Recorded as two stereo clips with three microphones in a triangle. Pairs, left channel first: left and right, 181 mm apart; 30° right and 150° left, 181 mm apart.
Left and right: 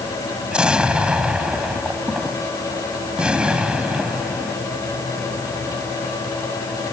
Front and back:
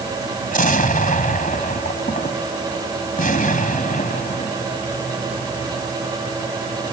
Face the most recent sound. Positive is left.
turn(degrees=-5)